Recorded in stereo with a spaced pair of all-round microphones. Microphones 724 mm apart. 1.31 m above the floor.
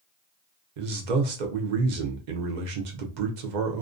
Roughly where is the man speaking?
Right.